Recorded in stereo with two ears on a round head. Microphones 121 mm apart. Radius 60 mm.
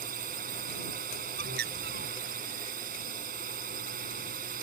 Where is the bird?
85° right.